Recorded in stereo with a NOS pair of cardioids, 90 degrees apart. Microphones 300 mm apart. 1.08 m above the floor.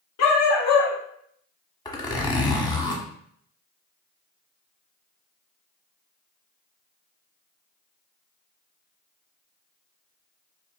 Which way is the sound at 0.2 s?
65° left.